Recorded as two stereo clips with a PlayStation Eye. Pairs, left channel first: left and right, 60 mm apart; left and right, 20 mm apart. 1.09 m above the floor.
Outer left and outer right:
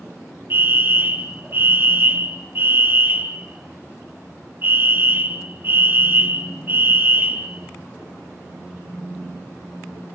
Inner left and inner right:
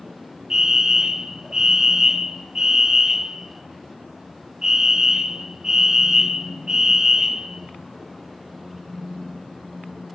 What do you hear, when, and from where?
0.5 s a fire alarm: 40° right (ahead or behind), 2.5 m